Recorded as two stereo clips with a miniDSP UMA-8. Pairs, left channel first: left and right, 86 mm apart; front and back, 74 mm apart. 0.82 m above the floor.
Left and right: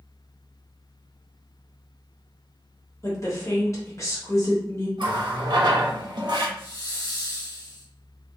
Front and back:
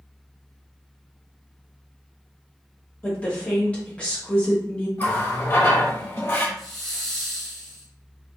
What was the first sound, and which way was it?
A woman speaking, 60° left.